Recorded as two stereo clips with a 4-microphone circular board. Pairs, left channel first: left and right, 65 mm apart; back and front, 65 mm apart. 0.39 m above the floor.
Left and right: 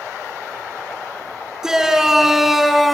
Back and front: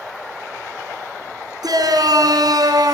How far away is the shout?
About 4.5 m.